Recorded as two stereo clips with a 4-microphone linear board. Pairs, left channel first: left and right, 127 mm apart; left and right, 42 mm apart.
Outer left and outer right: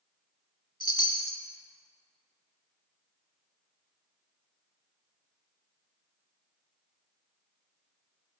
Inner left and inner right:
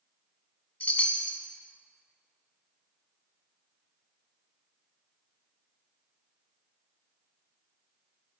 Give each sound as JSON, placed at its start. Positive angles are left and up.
{"t": 0.8, "sound": "a chime", "side_deg": 35, "distance_m": 0.6}